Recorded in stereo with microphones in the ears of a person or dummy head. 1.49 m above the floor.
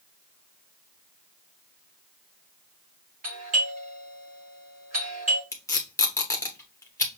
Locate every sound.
3.2 s a doorbell: 45° right (ahead or behind), 1.3 m
5.5 s tape being pulled: 10° left (ahead or behind), 0.9 m